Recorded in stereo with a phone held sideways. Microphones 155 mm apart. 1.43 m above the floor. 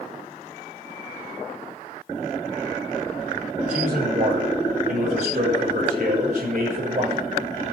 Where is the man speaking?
50° right (ahead or behind), 7 m.